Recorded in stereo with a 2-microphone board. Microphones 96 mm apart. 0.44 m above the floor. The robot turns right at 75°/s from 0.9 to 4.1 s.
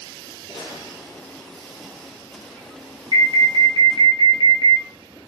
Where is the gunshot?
115° left, 2 m; by 1.5 s 160° left, 2 m.